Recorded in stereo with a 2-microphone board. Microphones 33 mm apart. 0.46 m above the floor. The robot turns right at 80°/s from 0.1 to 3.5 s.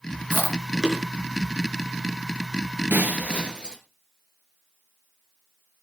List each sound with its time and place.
0.3 s chewing: 60° right (ahead or behind), 5 m; by 1.0 s 5° right (ahead or behind), 5 m
2.9 s breaking glass: 75° right, 2.5 m; by 3.8 s 25° right, 2.5 m